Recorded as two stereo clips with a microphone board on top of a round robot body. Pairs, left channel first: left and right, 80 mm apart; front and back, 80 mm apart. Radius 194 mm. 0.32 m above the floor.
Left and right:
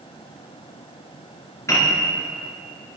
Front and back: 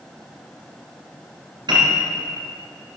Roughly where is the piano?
Behind left.